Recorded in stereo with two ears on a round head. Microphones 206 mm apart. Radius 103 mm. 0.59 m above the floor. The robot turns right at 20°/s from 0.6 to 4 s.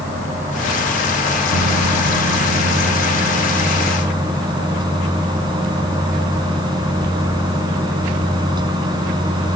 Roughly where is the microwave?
Right.